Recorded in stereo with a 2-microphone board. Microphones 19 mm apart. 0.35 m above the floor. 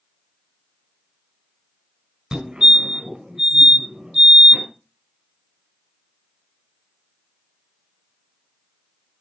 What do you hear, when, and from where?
2.3 s a fire alarm: 55° right (ahead or behind), 4.5 m